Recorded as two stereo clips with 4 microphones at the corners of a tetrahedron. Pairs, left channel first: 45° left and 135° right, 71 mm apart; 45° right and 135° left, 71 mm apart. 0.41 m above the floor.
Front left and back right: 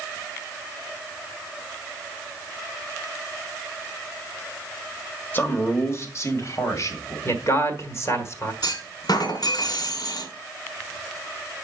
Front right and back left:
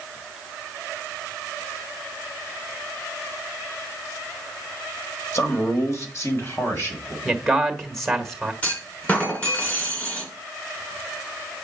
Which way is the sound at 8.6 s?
25° left.